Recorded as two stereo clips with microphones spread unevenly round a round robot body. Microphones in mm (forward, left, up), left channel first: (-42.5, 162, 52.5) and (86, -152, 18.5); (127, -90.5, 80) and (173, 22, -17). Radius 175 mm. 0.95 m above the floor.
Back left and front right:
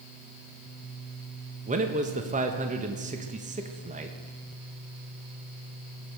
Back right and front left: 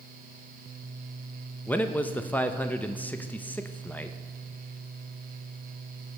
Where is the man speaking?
5° right, 1.0 m.